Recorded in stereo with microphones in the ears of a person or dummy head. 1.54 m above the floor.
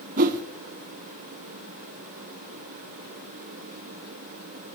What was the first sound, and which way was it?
A whoosh, 45° right (ahead or behind).